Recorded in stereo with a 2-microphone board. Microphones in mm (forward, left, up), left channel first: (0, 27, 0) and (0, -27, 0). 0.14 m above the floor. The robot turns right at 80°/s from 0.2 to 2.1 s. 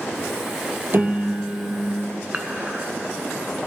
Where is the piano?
50° right, 1.0 m; by 2.1 s 40° left, 1.0 m.